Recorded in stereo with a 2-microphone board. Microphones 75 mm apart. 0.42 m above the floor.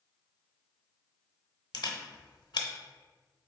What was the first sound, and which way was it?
A camera shutter, 70° left (ahead or behind).